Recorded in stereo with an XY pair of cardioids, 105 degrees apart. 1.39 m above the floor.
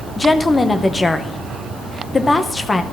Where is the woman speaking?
25° left, 0.8 m.